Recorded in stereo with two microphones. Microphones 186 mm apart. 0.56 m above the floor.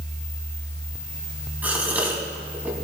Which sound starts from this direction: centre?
A gasp, at 1.6 s.